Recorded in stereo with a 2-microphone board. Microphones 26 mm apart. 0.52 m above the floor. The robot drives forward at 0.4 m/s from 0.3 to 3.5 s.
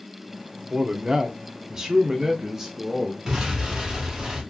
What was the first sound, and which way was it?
A man speaking, 30° right (ahead or behind).